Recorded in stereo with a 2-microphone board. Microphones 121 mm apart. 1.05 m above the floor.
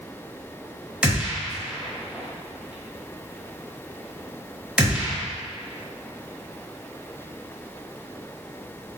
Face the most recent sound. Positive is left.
turn(degrees=-5)  # may be behind; listen again after turning